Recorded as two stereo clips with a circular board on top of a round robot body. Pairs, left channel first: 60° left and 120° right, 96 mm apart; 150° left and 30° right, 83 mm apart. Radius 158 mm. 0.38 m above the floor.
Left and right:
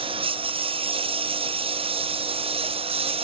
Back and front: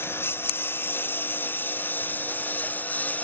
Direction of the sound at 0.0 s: 145° right.